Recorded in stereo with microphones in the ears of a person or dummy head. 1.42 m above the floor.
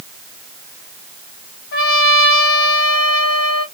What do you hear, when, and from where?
1.7 s a trumpet: 65° left (ahead or behind), 1.2 m